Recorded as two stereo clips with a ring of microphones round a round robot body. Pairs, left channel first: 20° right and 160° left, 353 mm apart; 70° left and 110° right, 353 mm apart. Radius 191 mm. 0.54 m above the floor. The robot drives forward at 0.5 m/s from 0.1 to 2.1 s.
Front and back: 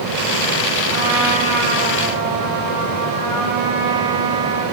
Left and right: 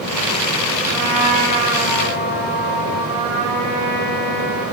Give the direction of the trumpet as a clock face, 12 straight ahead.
6 o'clock.